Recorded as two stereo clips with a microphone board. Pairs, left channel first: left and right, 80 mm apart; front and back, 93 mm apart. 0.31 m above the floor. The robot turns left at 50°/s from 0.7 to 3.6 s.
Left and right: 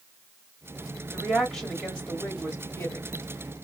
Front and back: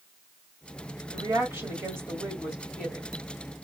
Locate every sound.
1.1 s a woman speaking: 175° right, 1.6 m; by 3.1 s 85° left, 1.6 m